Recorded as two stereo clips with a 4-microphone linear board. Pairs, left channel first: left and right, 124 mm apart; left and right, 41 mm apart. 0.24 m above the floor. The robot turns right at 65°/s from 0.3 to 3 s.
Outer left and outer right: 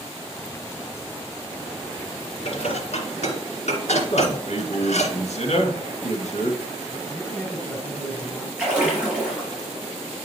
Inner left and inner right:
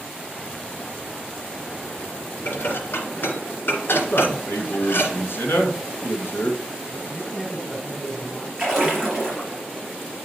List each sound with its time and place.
2.5 s dishes clattering: 55° left (ahead or behind), 2.5 m; by 5.1 s 65° left (ahead or behind), 2.5 m
4.1 s a man speaking: 70° left (ahead or behind), 2.5 m
7.1 s a man speaking: 15° left (ahead or behind), 2 m
8.6 s a splash: 10° right (ahead or behind), 4.5 m